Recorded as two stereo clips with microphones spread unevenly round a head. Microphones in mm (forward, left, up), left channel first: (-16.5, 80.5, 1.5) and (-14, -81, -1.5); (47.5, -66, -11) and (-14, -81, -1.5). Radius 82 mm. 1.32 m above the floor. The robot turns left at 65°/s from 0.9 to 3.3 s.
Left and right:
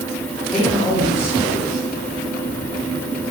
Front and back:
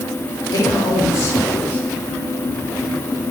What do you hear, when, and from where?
0.5 s a man speaking: 10° left, 3.5 m; by 1.9 s 50° right, 3.5 m